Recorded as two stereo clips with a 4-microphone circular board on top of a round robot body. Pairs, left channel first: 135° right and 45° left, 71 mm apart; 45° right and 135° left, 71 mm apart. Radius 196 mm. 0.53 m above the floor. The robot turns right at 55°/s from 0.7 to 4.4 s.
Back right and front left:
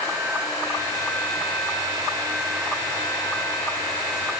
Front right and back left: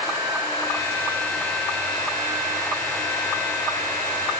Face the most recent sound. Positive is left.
No sound to turn to.